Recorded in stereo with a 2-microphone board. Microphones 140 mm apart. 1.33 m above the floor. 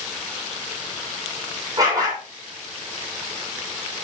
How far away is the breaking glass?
I don't hear breaking glass.